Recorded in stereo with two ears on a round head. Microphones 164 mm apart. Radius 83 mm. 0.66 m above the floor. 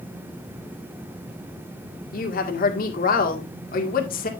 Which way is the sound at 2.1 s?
50° left (ahead or behind).